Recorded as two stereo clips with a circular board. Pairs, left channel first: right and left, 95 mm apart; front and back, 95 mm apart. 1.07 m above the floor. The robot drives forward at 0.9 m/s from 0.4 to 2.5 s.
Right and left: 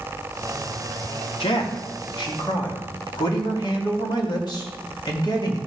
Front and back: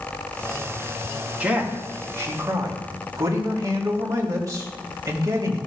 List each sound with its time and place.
1.4 s a man speaking: 105° right, 2 m; by 5.6 s 130° right, 2.5 m